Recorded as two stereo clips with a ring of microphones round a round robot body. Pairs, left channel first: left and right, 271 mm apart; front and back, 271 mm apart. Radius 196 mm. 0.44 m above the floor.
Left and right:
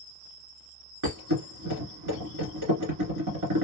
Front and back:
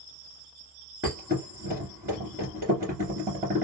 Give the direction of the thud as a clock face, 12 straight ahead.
4 o'clock.